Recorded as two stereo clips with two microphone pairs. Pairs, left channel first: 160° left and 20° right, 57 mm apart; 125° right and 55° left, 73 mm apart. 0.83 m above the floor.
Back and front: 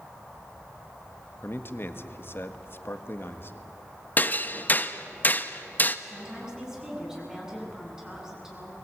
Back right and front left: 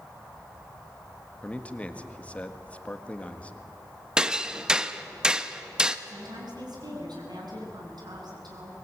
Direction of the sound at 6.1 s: 55° left.